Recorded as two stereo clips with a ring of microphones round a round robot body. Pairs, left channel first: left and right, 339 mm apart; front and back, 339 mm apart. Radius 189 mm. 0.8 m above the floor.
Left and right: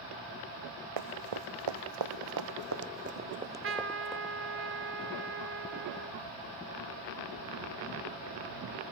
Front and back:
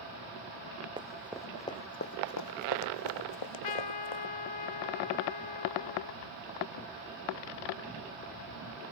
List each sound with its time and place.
1.0 s running footsteps: 100° right; by 4.3 s 5° left
3.3 s a trumpet: 30° right